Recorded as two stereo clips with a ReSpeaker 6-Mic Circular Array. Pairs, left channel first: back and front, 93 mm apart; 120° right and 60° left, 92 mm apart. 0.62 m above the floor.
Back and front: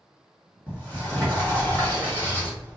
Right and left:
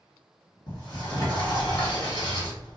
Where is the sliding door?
110° right, 1.6 m.